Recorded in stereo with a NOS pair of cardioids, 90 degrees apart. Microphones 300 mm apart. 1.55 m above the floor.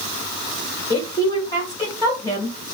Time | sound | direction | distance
0.9 | a woman speaking | 10° left | 2.5 m